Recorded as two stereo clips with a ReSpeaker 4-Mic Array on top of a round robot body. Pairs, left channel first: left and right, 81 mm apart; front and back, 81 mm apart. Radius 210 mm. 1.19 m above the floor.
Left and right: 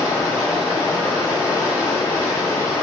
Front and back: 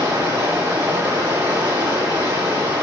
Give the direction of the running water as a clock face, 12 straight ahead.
8 o'clock.